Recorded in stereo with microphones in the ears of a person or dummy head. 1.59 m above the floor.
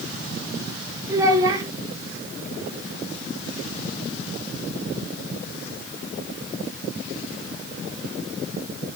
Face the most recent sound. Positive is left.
turn(degrees=-25)  # may be behind; listen again after turning